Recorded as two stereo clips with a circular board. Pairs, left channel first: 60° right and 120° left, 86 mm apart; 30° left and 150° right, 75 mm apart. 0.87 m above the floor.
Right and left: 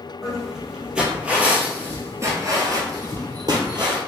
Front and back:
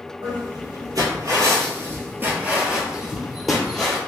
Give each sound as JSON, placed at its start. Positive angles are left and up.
{"t": 0.2, "sound": "footsteps", "azimuth_deg": -150, "distance_m": 1.5}